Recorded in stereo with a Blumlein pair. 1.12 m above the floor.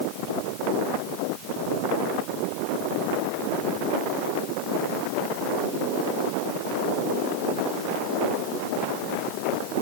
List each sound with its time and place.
Only background noise.